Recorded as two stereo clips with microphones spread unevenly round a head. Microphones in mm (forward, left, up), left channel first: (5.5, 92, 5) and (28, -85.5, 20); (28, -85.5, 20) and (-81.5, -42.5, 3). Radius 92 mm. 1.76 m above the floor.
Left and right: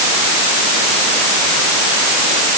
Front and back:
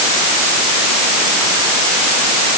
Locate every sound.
Only background noise.